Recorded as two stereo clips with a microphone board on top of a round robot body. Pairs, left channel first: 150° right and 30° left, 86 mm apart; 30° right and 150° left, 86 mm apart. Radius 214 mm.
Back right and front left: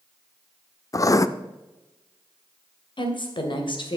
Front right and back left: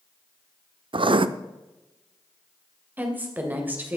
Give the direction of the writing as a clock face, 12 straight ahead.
7 o'clock.